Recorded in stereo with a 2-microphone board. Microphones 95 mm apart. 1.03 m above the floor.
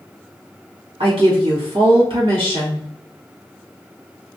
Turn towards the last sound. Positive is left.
turn(degrees=-65)  # may be behind; listen again after turning